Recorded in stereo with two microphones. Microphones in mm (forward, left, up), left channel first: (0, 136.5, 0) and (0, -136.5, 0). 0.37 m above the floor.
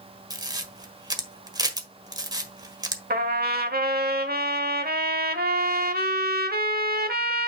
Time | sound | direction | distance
0.3 | a camera shutter | 15° right (ahead or behind) | 1.4 m
3.1 | a trumpet | 35° right (ahead or behind) | 1.2 m